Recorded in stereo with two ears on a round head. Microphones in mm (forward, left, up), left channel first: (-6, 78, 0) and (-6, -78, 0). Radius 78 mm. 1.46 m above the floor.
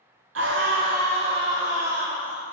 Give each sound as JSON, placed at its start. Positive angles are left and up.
{"t": 0.3, "sound": "a scream", "side_deg": -80, "distance_m": 0.6}